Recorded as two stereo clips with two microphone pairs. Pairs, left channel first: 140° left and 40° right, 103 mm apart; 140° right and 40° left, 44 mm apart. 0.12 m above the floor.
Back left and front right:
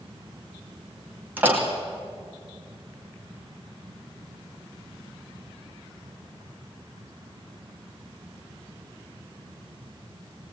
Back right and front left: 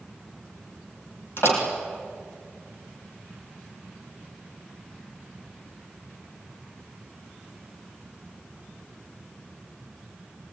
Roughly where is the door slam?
Behind right.